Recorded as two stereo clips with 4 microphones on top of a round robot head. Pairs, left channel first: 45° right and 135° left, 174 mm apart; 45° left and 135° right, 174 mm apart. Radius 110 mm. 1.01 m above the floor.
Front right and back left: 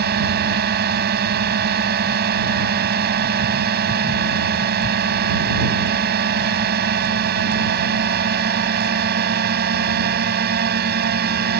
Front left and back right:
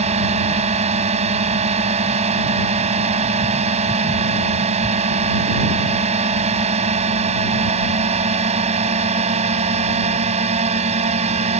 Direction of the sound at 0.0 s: 170° left.